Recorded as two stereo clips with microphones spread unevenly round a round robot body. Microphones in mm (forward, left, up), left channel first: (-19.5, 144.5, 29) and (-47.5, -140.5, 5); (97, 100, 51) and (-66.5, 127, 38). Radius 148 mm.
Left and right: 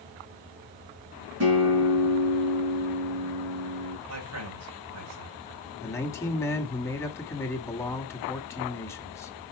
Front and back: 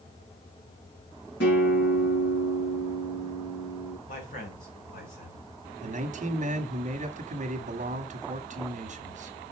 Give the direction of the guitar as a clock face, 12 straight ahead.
2 o'clock.